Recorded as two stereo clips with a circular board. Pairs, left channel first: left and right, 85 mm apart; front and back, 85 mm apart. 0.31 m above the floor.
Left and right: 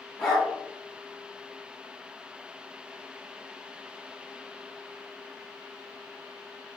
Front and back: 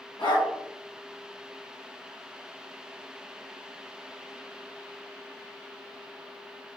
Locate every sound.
0.2 s a dog barking: 5° left, 2 m